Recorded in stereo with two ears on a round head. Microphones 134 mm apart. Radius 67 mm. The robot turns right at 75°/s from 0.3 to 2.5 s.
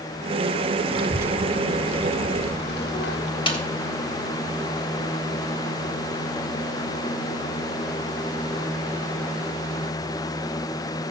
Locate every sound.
0.9 s a child speaking: 40° right (ahead or behind), 1.0 m; by 3.3 s 75° left (ahead or behind), 1.0 m
3.5 s a snare drum: 35° left (ahead or behind), 2.5 m